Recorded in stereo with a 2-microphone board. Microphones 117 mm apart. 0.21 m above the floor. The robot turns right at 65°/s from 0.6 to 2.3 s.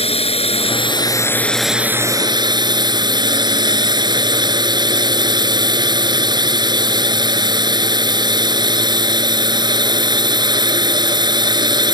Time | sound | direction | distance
0.0 | a drone | 110° left | ?